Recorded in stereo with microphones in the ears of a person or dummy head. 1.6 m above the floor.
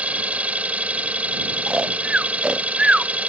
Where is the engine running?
5° right (ahead or behind).